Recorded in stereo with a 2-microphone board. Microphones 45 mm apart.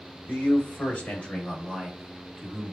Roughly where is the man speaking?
Left.